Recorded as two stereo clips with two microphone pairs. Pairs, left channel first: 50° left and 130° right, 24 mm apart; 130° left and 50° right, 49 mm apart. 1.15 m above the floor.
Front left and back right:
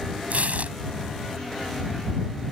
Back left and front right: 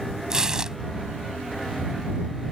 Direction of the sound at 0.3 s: 125° right.